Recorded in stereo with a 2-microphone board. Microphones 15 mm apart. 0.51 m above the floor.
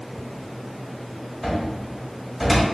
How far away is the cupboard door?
About 1.2 m.